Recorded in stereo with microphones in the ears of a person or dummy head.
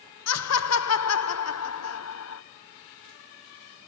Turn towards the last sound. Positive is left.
turn(degrees=75)  # may be behind; listen again after turning